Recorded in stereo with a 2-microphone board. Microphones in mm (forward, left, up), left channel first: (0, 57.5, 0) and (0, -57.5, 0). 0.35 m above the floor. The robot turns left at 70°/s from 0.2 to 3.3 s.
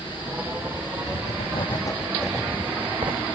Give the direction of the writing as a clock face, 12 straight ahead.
9 o'clock.